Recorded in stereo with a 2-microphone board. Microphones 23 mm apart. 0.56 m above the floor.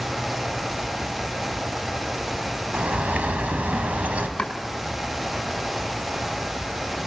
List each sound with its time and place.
2.7 s a bird: 80° right, 3.5 m
4.4 s chopping: 45° left (ahead or behind), 6 m